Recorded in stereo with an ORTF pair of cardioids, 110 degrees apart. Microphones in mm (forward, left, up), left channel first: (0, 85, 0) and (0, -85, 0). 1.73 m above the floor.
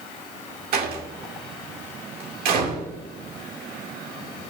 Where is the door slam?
65° right, 2 m.